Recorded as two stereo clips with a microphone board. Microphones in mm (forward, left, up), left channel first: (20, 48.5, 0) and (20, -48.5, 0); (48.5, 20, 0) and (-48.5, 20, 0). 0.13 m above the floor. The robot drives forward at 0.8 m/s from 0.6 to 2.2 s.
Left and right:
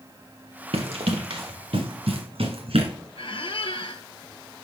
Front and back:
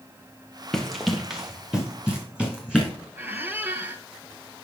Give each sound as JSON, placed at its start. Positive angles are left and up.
{"t": 0.7, "sound": "running footsteps", "azimuth_deg": -85, "distance_m": 1.6}
{"t": 3.2, "sound": "a squeak", "azimuth_deg": 110, "distance_m": 0.7}